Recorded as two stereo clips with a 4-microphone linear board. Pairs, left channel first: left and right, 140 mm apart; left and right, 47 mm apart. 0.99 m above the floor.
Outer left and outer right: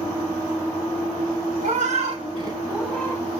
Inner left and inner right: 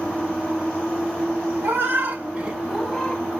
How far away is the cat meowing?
About 1.2 m.